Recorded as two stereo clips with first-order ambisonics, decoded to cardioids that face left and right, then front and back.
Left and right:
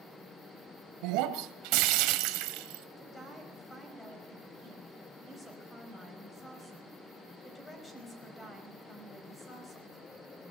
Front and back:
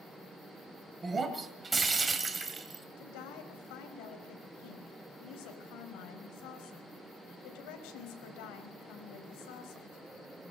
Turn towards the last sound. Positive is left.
turn(degrees=15)